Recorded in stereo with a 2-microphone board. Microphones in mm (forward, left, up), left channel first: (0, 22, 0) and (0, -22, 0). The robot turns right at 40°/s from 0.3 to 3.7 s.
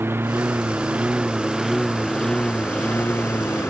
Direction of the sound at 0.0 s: 60° right.